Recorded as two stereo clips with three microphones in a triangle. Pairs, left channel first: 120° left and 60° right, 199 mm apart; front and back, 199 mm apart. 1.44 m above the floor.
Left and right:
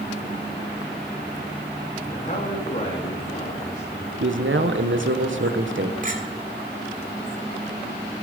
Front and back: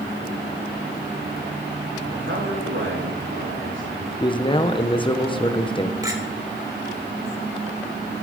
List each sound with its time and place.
2.1 s a man speaking: 170° left, 3 m
4.2 s a man speaking: 65° right, 1.3 m
6.0 s a clink: 105° right, 3 m